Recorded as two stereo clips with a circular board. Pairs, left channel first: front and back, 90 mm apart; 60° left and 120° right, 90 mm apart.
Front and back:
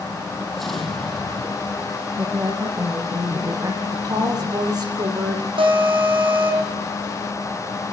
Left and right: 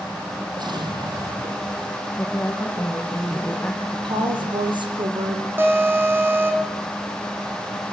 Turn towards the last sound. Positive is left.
turn(degrees=175)